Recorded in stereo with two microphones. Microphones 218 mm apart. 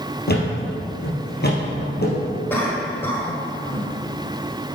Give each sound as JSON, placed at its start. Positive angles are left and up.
{"t": 0.3, "sound": "a thud", "side_deg": 50, "distance_m": 2.5}
{"t": 2.5, "sound": "a cough", "side_deg": 10, "distance_m": 1.5}